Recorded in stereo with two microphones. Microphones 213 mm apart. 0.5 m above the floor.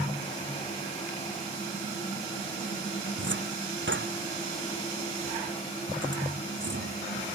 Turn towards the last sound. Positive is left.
turn(degrees=-65)  # may be behind; listen again after turning